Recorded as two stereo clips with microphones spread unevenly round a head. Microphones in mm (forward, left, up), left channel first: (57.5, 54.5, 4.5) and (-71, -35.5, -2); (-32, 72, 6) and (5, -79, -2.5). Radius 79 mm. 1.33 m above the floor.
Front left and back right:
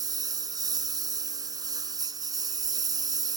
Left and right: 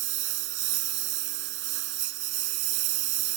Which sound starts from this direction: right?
A lawn mower, at 0.0 s.